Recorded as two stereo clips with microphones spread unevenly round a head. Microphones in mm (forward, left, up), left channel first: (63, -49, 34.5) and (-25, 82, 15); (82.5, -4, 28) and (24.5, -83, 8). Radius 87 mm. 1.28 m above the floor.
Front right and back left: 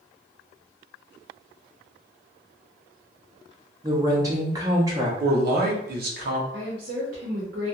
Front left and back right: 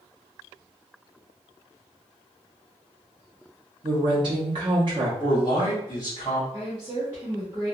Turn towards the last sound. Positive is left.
turn(degrees=160)